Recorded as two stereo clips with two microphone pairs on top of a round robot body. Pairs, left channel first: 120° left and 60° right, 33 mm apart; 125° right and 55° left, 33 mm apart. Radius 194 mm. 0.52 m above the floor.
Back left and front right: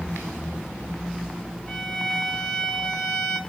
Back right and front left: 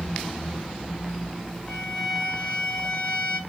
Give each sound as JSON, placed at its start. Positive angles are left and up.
{"t": 1.7, "sound": "a violin", "azimuth_deg": 165, "distance_m": 8.0}